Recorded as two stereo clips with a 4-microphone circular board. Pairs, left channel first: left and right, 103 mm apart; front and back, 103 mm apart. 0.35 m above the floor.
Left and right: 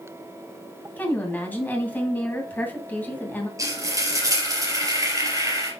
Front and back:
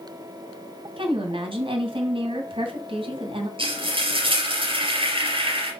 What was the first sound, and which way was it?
A woman speaking, 160° left.